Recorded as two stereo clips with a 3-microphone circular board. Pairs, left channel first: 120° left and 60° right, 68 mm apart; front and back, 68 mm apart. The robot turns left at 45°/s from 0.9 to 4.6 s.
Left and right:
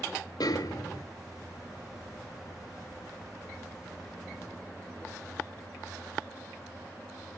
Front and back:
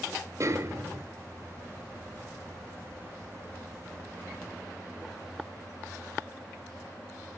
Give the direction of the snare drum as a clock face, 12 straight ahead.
7 o'clock.